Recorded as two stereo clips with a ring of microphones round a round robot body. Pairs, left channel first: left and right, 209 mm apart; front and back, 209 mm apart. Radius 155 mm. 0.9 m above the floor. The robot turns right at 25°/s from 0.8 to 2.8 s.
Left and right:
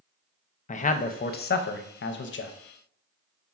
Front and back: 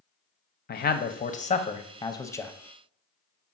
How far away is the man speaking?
About 0.6 m.